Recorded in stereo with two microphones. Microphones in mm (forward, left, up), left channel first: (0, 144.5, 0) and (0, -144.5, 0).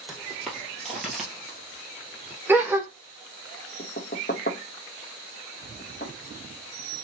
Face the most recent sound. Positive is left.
turn(degrees=35)  # may be behind; listen again after turning